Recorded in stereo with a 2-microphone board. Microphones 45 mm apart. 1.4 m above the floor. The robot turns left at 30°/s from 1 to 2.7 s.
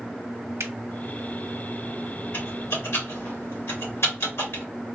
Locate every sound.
0.6 s a finger snap: 85° right, 0.6 m
2.3 s typing on a keyboard: 60° left (ahead or behind), 1.6 m; by 4.6 s 70° left (ahead or behind), 1.6 m